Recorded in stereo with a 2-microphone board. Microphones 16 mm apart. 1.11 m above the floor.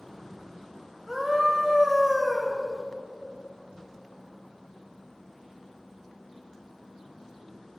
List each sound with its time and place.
1.1 s a scream: 10° right (ahead or behind), 1.1 m